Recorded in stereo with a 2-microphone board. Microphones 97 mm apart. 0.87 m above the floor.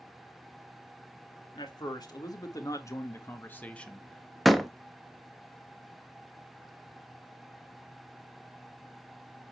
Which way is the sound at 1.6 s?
50° left (ahead or behind).